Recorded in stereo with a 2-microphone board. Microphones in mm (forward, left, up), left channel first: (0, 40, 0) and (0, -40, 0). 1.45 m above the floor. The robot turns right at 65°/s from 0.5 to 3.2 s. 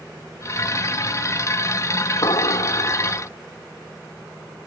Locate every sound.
2.2 s an explosion: 65° left; by 3.3 s 130° left